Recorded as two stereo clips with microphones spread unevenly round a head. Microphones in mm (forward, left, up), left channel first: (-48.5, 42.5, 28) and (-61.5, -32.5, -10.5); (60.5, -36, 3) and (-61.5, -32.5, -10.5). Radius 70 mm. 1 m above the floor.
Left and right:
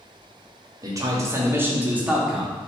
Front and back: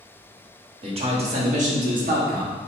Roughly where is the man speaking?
Behind right.